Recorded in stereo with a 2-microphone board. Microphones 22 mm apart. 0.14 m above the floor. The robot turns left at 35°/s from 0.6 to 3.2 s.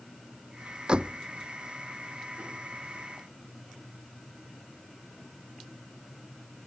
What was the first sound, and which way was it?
A door slam, 35° right (ahead or behind).